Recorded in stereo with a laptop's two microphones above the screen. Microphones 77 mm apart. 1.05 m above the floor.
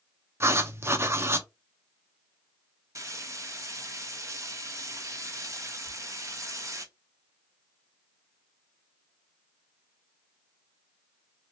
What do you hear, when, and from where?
0.4 s writing: 35° right (ahead or behind), 0.5 m
3.0 s frying: 40° right (ahead or behind), 0.9 m
5.8 s whispering: 10° right (ahead or behind), 2.0 m